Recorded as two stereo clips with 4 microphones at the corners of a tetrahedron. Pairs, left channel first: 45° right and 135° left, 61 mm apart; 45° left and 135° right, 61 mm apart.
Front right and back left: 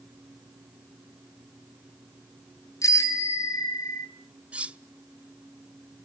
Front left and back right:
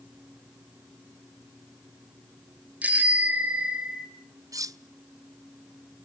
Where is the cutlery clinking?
155° right, 0.5 m.